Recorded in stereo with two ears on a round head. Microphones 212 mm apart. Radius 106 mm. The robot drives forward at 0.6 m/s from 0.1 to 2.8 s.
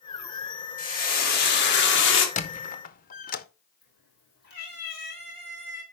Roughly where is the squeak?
Left.